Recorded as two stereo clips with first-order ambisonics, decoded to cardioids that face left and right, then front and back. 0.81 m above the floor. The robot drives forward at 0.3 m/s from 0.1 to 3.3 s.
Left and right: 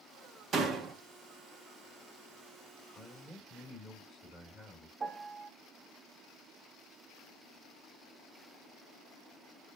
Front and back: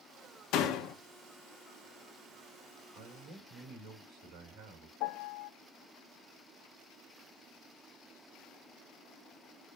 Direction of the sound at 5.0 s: 20° right.